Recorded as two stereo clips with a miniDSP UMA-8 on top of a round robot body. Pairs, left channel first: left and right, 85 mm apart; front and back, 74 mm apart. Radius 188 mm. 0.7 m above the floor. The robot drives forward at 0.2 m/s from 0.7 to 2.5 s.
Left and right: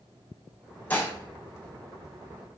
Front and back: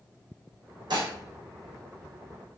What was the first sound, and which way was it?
Dishes clattering, 160° left.